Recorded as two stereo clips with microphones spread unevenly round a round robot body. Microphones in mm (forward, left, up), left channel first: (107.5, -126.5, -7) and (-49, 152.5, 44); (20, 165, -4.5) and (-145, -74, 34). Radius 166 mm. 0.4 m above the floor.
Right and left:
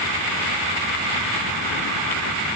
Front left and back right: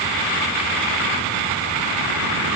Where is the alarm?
No alarm in this recording.